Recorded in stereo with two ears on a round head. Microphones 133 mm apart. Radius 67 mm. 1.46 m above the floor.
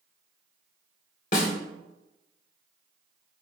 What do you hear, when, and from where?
1.3 s a snare drum: 50° left (ahead or behind), 2.0 m